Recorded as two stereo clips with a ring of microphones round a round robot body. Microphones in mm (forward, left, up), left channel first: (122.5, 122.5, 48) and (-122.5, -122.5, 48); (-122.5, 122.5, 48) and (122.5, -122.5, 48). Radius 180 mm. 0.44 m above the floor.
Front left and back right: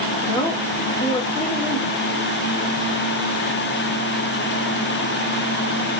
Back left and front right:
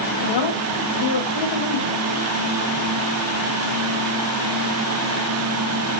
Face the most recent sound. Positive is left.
turn(degrees=115)